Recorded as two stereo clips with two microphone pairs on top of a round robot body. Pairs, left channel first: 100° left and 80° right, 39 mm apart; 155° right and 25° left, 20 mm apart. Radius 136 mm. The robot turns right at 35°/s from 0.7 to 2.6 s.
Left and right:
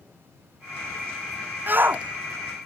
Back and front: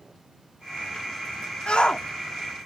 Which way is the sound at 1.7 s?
120° right.